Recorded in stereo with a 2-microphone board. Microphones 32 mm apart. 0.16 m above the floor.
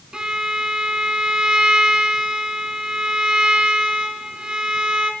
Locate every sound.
0.1 s a violin: 25° right (ahead or behind), 0.7 m